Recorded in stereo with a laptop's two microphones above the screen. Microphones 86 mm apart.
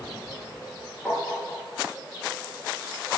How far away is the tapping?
About 3 m.